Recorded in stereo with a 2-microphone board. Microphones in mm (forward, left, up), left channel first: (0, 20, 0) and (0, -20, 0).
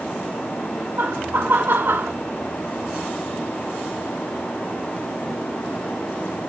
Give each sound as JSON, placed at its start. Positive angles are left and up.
{"t": 1.0, "sound": "laughter", "side_deg": -55, "distance_m": 2.0}